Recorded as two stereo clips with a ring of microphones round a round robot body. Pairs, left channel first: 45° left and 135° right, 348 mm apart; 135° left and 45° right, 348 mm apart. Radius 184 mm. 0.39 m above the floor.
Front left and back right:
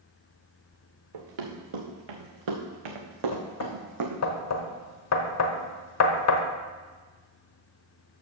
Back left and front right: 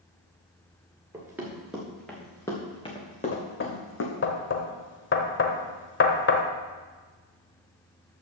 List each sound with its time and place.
1.1 s running footsteps: 130° right, 2.5 m; by 4.2 s 175° right, 1.8 m
3.3 s knocking: 80° left, 1.1 m